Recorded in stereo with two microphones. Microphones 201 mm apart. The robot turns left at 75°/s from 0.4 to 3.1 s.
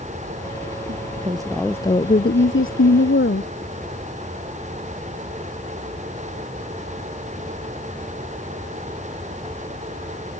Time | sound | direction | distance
0.9 | a woman speaking | 125° right | ?